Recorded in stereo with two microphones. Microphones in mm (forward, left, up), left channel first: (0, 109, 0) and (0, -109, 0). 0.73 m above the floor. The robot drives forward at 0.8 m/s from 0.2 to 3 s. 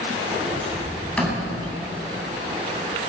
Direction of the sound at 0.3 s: 5° left (ahead or behind).